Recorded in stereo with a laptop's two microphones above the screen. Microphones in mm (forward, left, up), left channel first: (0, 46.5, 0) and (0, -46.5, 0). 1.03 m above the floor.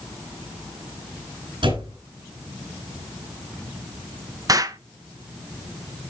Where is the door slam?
65° right (ahead or behind), 9 m.